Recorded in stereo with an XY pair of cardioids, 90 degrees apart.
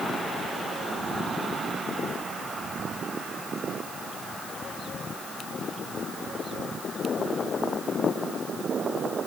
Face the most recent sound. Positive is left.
No sound to turn to.